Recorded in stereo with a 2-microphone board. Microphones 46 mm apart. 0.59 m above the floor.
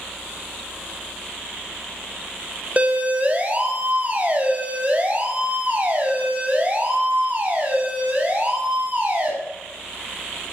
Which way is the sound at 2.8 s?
30° right (ahead or behind).